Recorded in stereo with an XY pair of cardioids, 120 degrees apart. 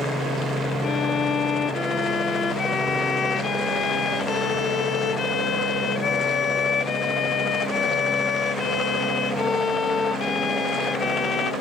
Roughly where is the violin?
Ahead left.